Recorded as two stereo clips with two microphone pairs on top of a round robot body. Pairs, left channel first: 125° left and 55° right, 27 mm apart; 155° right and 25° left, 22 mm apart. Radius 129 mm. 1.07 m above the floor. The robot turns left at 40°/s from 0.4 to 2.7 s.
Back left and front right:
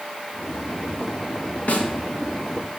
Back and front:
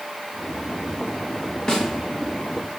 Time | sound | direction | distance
1.7 | a snare drum | 145° left | 1.7 m